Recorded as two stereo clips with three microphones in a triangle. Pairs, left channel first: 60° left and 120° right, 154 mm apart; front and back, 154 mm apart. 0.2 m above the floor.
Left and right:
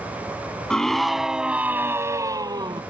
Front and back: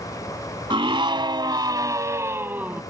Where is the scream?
145° left; by 2.8 s 110° right.